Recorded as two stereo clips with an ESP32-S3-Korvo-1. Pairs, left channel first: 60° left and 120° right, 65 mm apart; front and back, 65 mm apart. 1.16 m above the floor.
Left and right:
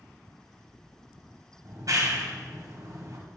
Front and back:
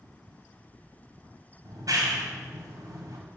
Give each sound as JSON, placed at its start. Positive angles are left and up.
{"t": 1.6, "sound": "a clap", "azimuth_deg": -150, "distance_m": 5.5}